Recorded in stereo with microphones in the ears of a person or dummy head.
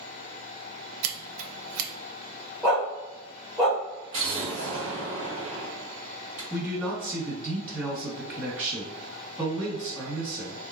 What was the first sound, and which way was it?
Scissors, 80° right.